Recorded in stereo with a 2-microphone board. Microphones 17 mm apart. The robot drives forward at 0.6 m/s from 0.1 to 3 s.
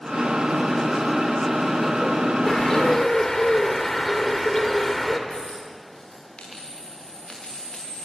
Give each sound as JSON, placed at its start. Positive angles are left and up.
{"t": 2.5, "sound": "a bird", "side_deg": 35, "distance_m": 2.0}
{"t": 5.3, "sound": "a dropped coin", "side_deg": 60, "distance_m": 7.0}